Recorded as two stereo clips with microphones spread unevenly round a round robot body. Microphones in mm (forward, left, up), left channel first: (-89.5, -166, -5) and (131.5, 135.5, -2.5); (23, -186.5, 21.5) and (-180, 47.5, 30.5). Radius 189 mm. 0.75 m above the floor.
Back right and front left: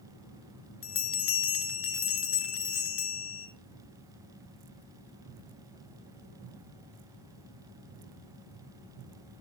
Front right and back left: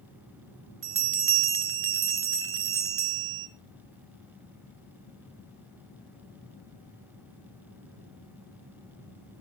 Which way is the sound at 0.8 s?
175° left.